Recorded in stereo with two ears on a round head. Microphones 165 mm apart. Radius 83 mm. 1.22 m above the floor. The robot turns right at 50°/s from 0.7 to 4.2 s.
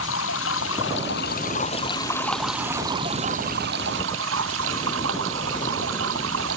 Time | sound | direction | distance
0.0 | running water | 95° left | ?